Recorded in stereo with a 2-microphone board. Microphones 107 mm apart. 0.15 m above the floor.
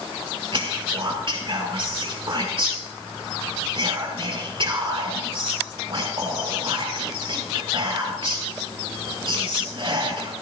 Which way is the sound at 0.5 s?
55° right (ahead or behind).